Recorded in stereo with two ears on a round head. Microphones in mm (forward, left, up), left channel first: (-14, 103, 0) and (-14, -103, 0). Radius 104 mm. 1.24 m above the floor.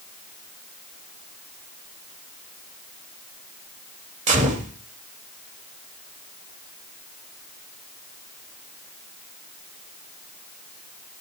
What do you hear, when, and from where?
4.3 s a gunshot: 35° right (ahead or behind), 2 m